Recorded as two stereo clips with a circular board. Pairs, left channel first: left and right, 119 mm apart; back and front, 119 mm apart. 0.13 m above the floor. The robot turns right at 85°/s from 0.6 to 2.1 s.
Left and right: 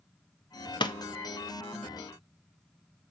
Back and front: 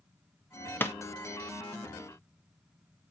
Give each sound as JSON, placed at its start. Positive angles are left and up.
{"t": 0.8, "sound": "a pop", "azimuth_deg": 115, "distance_m": 0.9}